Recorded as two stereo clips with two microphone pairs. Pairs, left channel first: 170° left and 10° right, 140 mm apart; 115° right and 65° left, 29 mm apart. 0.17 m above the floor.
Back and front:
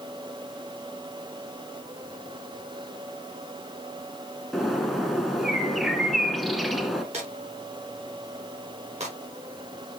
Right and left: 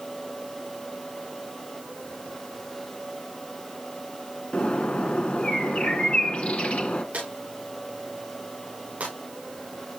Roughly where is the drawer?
Ahead left.